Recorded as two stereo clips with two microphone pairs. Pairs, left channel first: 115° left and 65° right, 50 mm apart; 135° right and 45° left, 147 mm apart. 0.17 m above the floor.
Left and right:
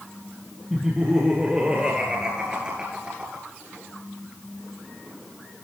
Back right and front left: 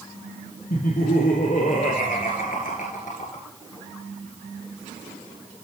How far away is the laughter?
About 3.5 m.